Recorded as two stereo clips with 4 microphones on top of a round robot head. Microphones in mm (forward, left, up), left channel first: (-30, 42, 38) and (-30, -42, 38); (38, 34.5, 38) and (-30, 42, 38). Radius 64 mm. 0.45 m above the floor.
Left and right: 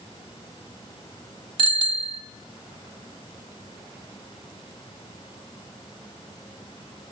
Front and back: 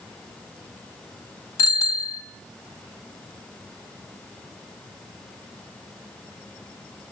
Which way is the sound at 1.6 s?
60° right.